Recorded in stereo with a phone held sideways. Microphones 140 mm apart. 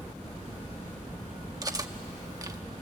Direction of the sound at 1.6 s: 25° right (ahead or behind).